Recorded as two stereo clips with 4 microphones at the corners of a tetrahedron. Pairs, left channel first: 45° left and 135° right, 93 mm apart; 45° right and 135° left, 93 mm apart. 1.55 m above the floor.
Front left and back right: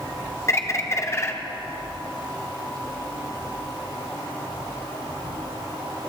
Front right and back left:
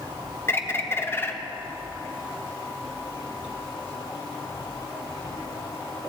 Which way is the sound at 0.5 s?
10° left.